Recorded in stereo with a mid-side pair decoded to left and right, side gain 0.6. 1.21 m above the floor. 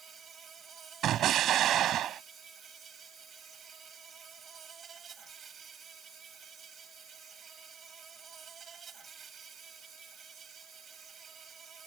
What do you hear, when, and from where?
0.0 s an insect: 40° right
1.0 s an explosion: 55° right